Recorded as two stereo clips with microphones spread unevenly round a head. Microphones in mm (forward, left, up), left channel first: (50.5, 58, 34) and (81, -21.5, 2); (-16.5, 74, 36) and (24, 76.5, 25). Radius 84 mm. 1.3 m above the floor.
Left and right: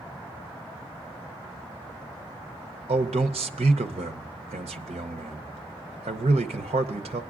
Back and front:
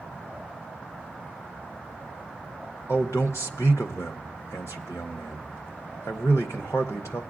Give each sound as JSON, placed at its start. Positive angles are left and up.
{"t": 2.9, "sound": "a man speaking", "azimuth_deg": -115, "distance_m": 0.5}